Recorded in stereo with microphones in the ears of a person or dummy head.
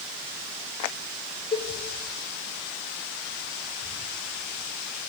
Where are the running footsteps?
I don't hear running footsteps.